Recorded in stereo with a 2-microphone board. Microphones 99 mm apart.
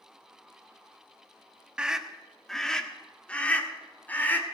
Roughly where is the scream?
Centre.